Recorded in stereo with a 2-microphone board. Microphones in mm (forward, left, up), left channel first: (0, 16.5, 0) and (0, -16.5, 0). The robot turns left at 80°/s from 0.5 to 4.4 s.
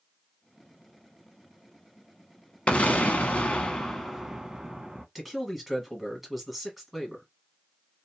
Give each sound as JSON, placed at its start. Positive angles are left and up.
{"t": 2.7, "sound": "an explosion", "azimuth_deg": 120, "distance_m": 0.7}
{"t": 5.2, "sound": "a man speaking", "side_deg": -5, "distance_m": 1.3}